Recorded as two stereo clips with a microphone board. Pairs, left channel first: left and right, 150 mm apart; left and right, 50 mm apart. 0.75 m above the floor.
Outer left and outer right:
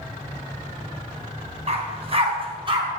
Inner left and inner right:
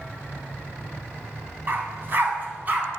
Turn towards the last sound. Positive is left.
turn(degrees=-35)  # may be behind; listen again after turning